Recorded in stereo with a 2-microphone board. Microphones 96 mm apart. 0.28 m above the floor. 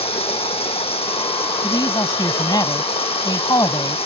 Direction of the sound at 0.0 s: 80° left.